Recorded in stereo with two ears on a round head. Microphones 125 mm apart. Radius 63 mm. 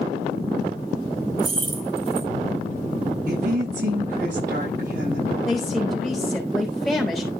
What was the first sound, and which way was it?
Keys jangling, 45° right (ahead or behind).